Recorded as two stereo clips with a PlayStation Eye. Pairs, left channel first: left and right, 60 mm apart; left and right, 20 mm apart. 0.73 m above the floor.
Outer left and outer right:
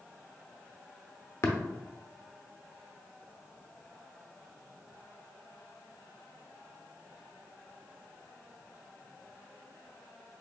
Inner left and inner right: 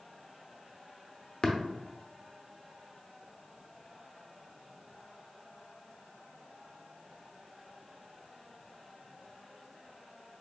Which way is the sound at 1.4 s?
45° left (ahead or behind).